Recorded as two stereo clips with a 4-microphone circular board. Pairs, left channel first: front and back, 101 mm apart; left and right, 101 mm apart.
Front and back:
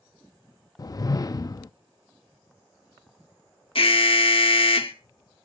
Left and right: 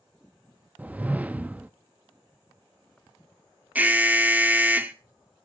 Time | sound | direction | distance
0.8 | a whoosh | 20° right | 0.5 m
3.8 | an alarm | 15° right | 1.1 m